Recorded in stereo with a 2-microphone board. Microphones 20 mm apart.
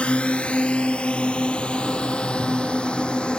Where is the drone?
70° left (ahead or behind); by 3.4 s 50° left (ahead or behind).